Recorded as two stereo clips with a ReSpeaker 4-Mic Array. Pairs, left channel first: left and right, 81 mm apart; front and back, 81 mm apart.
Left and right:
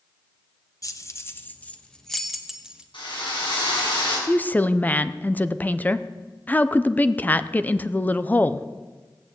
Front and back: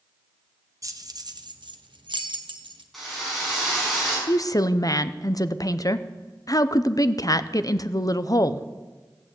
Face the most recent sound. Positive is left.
turn(degrees=25)